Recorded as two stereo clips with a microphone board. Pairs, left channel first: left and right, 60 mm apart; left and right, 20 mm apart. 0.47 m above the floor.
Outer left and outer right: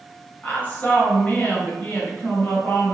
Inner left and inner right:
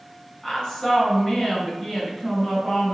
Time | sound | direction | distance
0.4 | a woman speaking | 30° left (ahead or behind) | 1.8 m